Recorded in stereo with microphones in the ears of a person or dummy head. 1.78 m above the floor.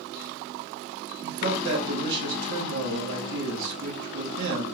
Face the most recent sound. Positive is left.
turn(degrees=-65)  # may be behind; listen again after turning